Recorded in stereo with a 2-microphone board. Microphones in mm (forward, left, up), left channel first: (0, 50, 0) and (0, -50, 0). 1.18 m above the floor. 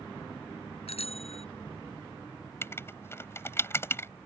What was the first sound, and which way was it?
A bicycle bell, 85° left.